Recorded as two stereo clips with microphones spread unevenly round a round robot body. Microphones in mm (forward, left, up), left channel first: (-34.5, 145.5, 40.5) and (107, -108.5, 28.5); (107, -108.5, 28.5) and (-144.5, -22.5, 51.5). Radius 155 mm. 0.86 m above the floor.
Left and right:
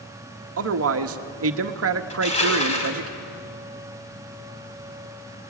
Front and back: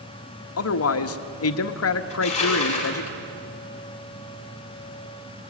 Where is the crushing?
50° left, 5.5 m.